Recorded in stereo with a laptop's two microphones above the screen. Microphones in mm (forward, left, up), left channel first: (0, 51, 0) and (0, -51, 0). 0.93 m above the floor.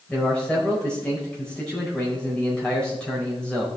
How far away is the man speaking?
About 5.5 m.